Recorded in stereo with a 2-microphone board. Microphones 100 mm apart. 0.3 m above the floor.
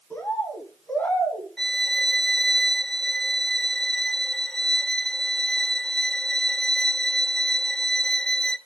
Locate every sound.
0.1 s a bird: 15° left (ahead or behind), 2.5 m
1.6 s a violin: 5° left (ahead or behind), 0.8 m